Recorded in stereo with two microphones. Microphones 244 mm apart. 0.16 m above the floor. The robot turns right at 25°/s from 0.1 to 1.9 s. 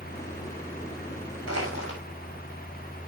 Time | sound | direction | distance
1.5 | crushing | 65° right (ahead or behind) | 6.5 m